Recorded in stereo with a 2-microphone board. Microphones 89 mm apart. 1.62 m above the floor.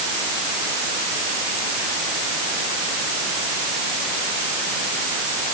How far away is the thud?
I don't hear a thud.